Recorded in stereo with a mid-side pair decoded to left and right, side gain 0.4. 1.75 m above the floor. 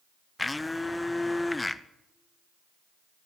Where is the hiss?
I don't hear a hiss.